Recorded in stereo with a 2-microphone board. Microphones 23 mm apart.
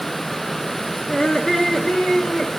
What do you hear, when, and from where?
1.1 s laughter: 25° left (ahead or behind), 2.5 m; by 2.5 s 60° left (ahead or behind), 3.5 m